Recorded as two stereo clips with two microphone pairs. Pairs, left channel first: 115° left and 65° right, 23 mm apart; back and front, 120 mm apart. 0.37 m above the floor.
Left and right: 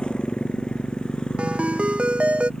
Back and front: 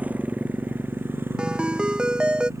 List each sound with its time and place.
0.0 s a motorcycle: 75° left; by 2.6 s 65° left
1.4 s a ringtone: 85° right